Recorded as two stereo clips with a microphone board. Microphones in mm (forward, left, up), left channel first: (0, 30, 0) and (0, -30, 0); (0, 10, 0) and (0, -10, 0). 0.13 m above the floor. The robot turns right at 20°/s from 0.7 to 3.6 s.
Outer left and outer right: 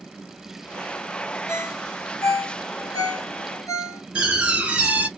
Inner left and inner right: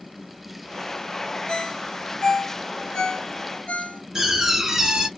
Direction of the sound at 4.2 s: 20° right (ahead or behind).